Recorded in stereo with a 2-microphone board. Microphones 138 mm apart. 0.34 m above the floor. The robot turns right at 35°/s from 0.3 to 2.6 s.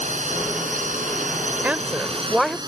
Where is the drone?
65° right (ahead or behind); by 2.7 s 30° right (ahead or behind).